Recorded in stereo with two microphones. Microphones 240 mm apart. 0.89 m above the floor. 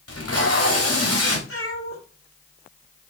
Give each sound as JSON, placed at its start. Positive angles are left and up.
{"t": 0.1, "sound": "tape being pulled", "side_deg": 70, "distance_m": 3.0}
{"t": 1.5, "sound": "a cat meowing", "side_deg": 60, "distance_m": 5.5}